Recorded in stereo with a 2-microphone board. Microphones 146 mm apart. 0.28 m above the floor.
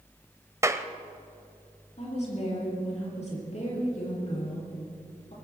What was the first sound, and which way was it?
A clap, 20° right (ahead or behind).